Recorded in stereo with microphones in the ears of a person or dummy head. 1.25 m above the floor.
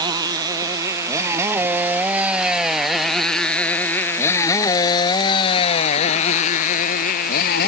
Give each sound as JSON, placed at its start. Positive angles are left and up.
{"t": 0.0, "sound": "a motorcycle", "side_deg": -30}